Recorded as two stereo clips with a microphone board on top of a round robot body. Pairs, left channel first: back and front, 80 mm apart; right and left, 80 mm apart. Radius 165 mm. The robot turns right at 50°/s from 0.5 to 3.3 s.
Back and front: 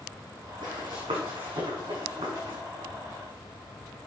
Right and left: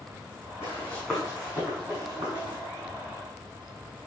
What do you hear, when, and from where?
0.6 s running footsteps: 30° right, 4 m; by 2.6 s 60° left, 5 m